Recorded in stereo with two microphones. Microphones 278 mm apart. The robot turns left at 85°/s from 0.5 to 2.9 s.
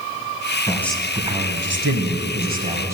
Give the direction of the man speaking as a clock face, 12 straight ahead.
11 o'clock.